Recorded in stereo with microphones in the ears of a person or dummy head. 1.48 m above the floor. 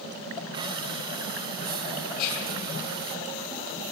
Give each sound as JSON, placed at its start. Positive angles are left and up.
{"t": 0.5, "sound": "breathing", "side_deg": -25, "distance_m": 1.1}
{"t": 2.2, "sound": "whispering", "side_deg": 70, "distance_m": 6.0}